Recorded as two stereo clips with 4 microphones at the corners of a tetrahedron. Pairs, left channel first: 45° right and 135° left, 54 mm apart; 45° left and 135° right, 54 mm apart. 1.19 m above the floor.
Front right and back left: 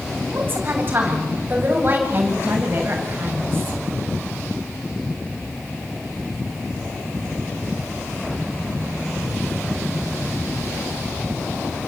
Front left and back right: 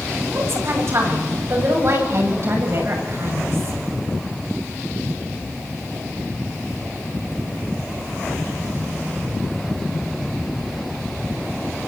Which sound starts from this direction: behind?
A woman speaking, at 0.3 s.